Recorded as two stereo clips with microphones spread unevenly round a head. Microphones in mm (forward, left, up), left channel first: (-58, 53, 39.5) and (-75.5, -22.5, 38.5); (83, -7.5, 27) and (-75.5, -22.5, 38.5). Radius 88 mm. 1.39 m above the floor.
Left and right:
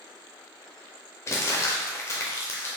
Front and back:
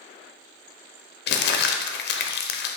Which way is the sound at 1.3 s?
15° left.